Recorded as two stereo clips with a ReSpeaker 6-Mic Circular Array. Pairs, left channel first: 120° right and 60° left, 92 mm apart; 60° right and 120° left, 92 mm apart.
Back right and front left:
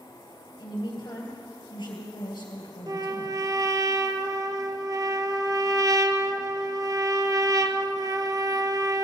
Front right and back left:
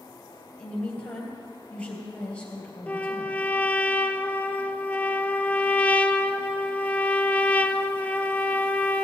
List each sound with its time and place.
0.6 s a woman speaking: 135° right, 3 m
2.9 s a trumpet: 15° left, 0.5 m